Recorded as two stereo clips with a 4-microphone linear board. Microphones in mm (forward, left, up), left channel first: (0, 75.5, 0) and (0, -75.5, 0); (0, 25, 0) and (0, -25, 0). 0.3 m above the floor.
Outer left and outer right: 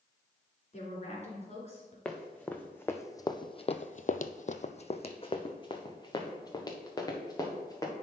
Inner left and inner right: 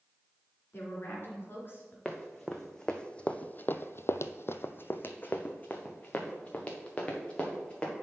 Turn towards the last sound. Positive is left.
turn(degrees=20)  # may be behind; listen again after turning